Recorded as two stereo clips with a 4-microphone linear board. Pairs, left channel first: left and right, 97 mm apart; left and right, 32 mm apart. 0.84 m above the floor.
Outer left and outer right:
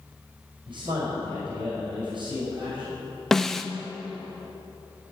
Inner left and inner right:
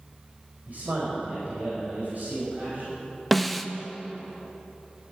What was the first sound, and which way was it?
A man speaking, 60° right (ahead or behind).